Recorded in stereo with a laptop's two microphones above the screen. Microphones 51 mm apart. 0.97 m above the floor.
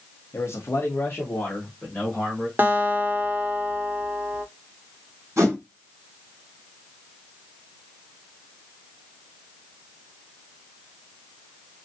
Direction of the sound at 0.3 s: 60° left (ahead or behind).